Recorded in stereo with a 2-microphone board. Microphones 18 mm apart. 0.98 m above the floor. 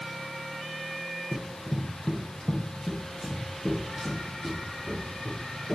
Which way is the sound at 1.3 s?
15° right (ahead or behind).